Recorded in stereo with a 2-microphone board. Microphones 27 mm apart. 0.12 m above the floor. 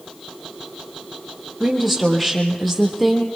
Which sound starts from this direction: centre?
A woman speaking, at 1.6 s.